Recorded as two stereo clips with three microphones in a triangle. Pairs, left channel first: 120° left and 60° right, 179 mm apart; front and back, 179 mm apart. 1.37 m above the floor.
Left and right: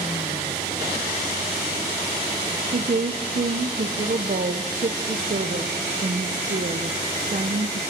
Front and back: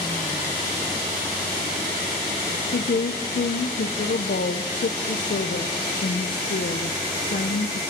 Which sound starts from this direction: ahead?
A woman speaking, at 2.7 s.